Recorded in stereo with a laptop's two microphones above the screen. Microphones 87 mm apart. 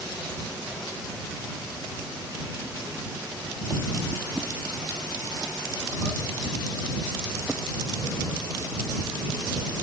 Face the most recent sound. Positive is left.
No sound to turn to.